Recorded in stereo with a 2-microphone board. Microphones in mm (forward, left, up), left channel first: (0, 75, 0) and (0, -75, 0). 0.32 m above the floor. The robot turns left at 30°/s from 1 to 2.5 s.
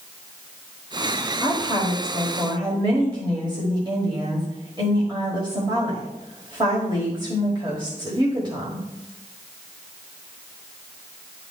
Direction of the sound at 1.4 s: 45° right.